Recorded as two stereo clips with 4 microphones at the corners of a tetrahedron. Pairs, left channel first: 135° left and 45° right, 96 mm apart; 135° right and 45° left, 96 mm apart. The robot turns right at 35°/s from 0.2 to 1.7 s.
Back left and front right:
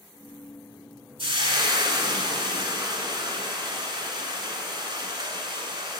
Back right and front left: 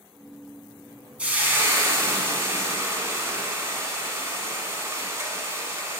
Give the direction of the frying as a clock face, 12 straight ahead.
1 o'clock.